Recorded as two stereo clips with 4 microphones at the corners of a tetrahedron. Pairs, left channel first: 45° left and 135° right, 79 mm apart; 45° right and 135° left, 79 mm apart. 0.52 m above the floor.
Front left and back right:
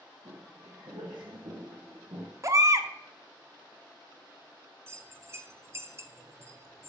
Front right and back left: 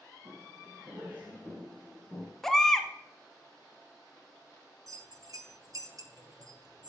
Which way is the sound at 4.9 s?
170° left.